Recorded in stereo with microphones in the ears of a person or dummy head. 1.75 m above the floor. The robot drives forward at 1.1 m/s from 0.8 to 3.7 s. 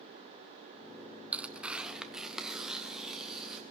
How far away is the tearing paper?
About 0.8 m.